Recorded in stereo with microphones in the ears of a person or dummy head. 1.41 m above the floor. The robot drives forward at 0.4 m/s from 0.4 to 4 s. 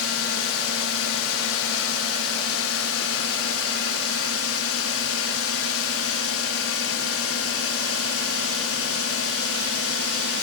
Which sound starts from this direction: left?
A drone, at 0.0 s.